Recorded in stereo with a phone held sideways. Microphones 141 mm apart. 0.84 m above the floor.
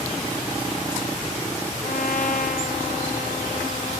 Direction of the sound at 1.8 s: 60° left (ahead or behind).